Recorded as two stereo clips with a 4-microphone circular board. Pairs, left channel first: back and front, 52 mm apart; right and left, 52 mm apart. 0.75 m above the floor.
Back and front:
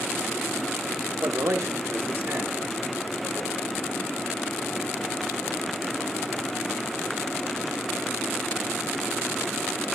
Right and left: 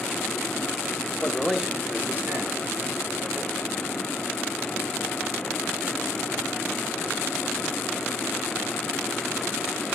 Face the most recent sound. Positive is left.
turn(degrees=70)